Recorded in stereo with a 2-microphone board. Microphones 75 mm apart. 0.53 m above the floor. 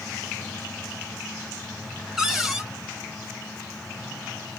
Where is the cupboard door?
5° right (ahead or behind), 1.3 m.